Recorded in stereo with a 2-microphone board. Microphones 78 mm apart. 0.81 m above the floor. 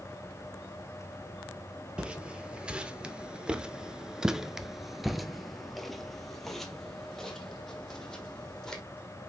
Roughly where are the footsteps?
Centre.